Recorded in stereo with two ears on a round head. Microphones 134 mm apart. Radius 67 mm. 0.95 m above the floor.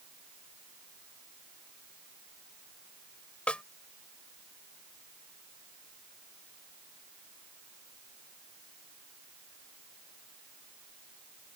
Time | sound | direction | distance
3.5 | a snare drum | 10° left (ahead or behind) | ?